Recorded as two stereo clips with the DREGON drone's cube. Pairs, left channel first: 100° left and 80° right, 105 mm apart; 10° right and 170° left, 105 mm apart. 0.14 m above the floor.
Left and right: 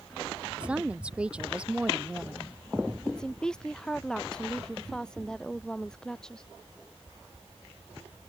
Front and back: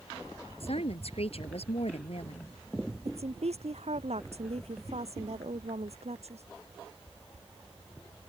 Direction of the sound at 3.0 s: 175° right.